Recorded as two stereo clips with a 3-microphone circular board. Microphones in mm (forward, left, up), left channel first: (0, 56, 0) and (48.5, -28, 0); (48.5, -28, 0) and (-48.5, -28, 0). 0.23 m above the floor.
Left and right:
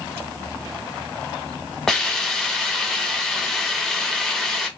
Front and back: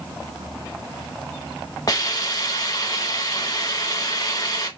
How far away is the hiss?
About 0.7 m.